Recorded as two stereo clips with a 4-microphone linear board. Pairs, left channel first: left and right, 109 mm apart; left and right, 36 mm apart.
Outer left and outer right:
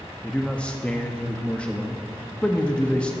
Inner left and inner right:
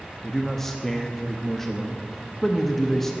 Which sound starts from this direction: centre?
A man speaking, at 0.2 s.